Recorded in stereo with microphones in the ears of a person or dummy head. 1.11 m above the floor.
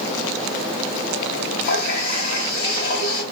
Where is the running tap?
65° left (ahead or behind), 3 m.